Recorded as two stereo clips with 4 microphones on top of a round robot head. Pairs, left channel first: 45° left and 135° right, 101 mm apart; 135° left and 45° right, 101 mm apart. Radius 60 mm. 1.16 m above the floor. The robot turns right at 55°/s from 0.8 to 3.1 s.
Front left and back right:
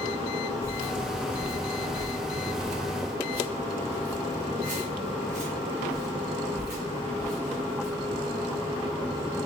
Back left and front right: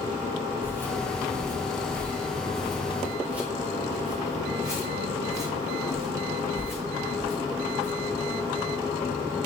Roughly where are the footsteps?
Behind.